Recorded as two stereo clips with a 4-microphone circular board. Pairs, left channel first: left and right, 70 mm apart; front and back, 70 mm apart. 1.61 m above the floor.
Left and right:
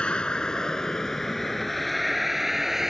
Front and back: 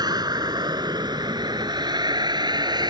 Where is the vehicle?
165° left; by 2.9 s 175° right.